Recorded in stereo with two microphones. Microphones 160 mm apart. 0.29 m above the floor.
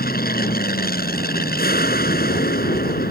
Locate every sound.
0.0 s an aircraft: 70° left (ahead or behind)